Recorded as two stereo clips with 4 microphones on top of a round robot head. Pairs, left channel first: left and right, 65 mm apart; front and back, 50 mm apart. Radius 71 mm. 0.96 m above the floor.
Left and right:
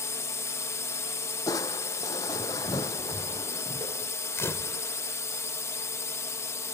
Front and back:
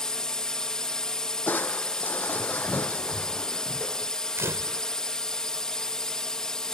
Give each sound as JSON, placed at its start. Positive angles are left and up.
{"t": 0.0, "sound": "a drone", "azimuth_deg": 70}
{"t": 1.5, "sound": "crushing", "azimuth_deg": 50}
{"t": 4.4, "sound": "a camera shutter", "azimuth_deg": 140}